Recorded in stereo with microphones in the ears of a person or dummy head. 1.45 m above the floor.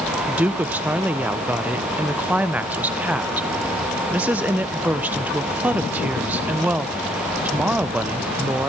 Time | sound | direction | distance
0.3 | a woman speaking | 10° right (ahead or behind) | 0.6 m